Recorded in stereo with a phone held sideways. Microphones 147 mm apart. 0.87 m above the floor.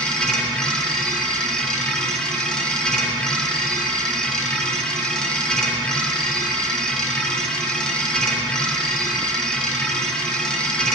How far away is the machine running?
About 1.3 m.